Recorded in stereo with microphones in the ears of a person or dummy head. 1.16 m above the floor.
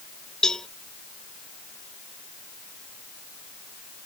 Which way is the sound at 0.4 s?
Centre (ahead or behind).